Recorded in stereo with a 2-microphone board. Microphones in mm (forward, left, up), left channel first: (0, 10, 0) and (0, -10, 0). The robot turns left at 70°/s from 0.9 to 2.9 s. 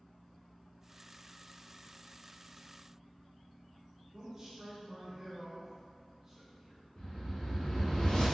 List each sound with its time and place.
4.1 s a man speaking: 40° right (ahead or behind), 1.0 m
7.0 s a whoosh: 65° left (ahead or behind), 2.0 m